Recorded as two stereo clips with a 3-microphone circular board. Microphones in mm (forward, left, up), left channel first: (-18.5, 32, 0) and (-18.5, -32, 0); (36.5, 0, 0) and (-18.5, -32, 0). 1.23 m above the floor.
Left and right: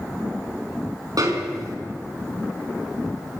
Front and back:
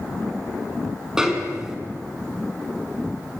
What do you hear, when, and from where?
1.2 s a snare drum: 70° right, 4 m